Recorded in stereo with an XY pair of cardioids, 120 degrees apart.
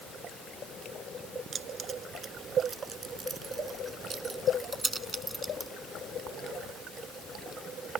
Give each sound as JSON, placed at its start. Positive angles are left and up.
{"t": 1.5, "sound": "keys jangling", "azimuth_deg": -40}